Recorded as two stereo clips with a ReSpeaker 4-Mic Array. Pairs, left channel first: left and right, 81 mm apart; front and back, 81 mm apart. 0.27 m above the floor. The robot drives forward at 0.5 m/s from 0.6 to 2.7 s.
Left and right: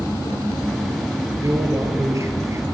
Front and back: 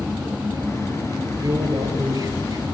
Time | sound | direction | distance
1.4 | a man speaking | 140° right | 5 m